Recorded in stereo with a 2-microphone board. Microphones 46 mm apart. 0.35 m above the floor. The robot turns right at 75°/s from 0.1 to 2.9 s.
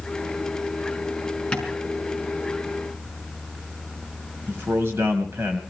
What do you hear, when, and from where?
1.5 s tapping: 20° left (ahead or behind), 5 m; by 1.7 s 5° left (ahead or behind), 5 m
4.5 s a man speaking: 60° right (ahead or behind), 2.0 m